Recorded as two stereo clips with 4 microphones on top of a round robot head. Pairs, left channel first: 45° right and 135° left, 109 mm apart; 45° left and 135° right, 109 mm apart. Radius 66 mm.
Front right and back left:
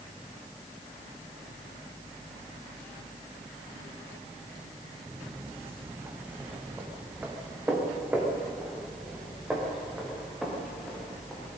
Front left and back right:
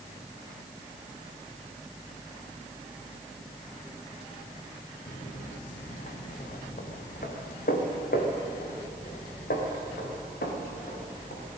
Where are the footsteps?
70° left, 2.5 m; by 11.5 s 45° left, 5.5 m.